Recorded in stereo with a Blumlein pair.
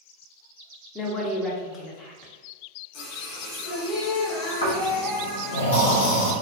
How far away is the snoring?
About 0.8 m.